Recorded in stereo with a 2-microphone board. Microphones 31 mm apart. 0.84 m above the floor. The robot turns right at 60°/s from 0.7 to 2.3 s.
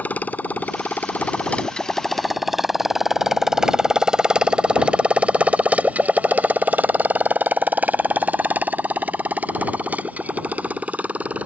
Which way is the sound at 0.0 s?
75° left (ahead or behind).